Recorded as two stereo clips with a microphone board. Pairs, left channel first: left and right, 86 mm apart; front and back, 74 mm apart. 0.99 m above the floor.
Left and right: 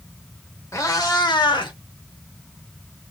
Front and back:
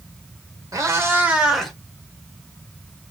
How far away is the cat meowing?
About 1.4 m.